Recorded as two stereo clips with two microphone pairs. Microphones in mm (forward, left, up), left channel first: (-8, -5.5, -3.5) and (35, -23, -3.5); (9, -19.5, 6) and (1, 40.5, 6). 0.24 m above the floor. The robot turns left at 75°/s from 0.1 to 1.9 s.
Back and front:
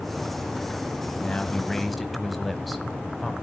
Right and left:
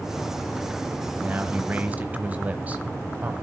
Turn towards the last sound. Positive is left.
turn(degrees=70)